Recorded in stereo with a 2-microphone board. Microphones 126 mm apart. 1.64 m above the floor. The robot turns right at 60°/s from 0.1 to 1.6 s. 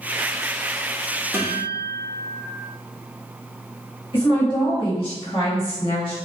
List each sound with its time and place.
1.3 s a guitar: 20° right (ahead or behind), 1.0 m; by 2.4 s 15° right (ahead or behind), 1.0 m
4.1 s a woman speaking: 45° left (ahead or behind), 1.7 m